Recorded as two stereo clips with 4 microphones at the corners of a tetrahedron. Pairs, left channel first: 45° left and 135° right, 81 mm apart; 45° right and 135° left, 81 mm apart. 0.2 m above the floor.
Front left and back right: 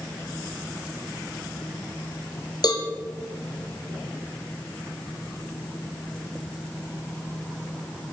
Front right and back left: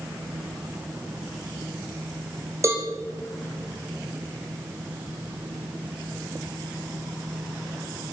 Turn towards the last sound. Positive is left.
turn(degrees=80)